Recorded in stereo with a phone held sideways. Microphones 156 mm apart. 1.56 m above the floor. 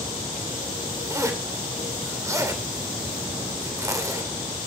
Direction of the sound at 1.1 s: 20° right (ahead or behind).